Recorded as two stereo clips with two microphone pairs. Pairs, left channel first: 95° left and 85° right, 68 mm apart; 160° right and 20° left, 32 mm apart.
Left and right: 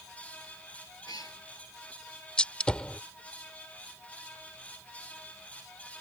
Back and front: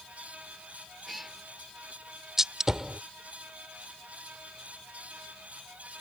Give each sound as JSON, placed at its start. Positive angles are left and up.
{"t": 1.1, "sound": "a cat meowing", "azimuth_deg": 110}
{"t": 2.4, "sound": "a gunshot", "azimuth_deg": 65}